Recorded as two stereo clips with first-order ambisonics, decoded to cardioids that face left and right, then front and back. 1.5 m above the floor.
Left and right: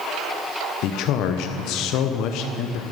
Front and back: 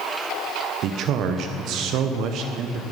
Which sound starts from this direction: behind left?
A man speaking, at 0.8 s.